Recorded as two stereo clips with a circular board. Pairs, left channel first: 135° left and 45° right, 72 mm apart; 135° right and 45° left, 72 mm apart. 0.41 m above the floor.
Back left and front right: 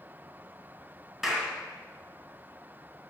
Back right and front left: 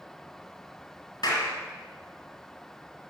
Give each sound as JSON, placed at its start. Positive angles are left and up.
{"t": 1.2, "sound": "a clap", "azimuth_deg": -130, "distance_m": 2.5}